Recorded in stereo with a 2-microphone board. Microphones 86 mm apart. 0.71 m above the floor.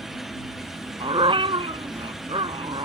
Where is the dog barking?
85° right.